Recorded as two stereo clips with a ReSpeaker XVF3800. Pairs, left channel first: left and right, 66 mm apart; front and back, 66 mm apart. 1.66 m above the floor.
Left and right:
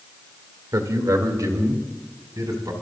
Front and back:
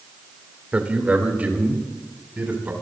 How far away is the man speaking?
About 2.0 m.